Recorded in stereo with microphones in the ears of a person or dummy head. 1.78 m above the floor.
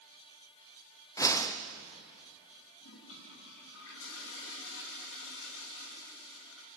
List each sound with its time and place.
1.2 s a whoosh: 20° left (ahead or behind), 1.0 m
2.8 s a toilet flushing: 70° left (ahead or behind), 3.5 m